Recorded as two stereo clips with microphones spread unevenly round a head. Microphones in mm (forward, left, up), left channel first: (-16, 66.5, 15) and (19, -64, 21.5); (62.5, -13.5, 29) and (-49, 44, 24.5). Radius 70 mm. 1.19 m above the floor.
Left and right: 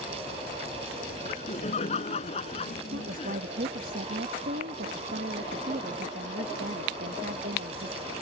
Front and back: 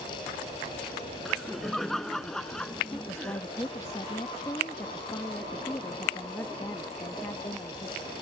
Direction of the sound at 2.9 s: 100° right.